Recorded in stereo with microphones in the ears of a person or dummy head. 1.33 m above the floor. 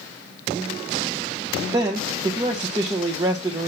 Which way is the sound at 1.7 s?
25° right (ahead or behind).